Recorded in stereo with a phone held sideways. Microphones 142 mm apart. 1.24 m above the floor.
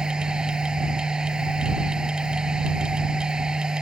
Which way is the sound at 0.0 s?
5° right (ahead or behind).